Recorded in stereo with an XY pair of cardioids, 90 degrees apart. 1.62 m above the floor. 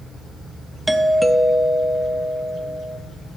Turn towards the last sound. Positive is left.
turn(degrees=-5)